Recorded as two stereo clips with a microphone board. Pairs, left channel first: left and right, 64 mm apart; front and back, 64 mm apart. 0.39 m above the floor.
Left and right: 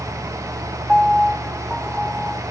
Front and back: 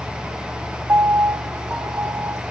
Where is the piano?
170° left, 0.8 m.